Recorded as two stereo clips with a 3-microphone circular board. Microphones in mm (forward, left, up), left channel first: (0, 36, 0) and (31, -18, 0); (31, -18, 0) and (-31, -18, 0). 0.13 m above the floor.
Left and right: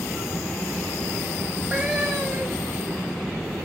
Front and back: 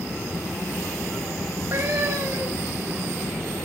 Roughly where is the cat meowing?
Behind right.